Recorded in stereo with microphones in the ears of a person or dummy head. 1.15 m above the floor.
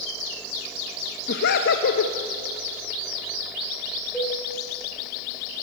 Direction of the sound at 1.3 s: 60° left (ahead or behind).